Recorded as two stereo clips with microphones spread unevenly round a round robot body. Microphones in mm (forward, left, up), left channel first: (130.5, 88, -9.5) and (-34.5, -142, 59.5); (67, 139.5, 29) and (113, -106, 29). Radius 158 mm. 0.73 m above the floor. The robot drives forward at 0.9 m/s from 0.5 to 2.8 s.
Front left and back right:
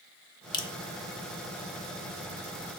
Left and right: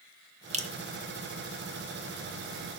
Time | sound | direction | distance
0.5 | dripping | 15° right | 1.1 m